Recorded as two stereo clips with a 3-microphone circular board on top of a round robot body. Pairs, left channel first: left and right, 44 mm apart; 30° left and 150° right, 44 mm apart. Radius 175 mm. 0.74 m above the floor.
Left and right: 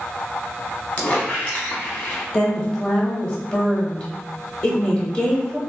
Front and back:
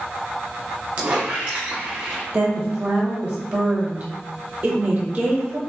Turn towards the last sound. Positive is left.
turn(degrees=150)